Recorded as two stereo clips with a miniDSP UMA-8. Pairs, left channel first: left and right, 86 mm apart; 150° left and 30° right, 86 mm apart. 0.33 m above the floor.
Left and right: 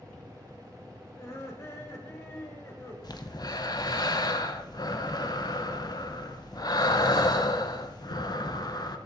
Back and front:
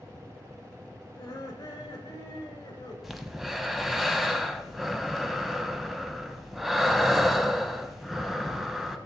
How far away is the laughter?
About 1.9 m.